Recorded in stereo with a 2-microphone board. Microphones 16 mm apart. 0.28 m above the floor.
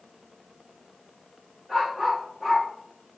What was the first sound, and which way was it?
A dog barking, 15° left (ahead or behind).